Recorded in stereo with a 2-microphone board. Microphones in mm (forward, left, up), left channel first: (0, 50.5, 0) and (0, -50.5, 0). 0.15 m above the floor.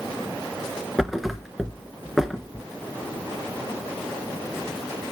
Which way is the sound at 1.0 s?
Centre (ahead or behind).